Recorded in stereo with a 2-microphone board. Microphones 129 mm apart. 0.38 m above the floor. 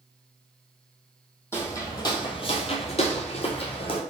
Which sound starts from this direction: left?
Footsteps, at 1.5 s.